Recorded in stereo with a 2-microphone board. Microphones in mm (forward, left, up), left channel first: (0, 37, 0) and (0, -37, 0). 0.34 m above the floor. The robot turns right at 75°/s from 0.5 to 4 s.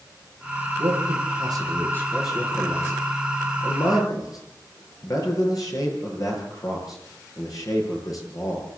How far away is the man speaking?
About 8 m.